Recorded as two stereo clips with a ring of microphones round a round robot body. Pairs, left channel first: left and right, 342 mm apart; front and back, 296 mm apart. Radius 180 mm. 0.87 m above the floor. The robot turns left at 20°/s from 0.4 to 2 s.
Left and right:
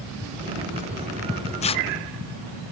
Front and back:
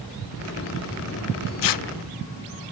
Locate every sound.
1.6 s tearing paper: 15° left, 0.8 m; by 1.9 s 10° left, 0.8 m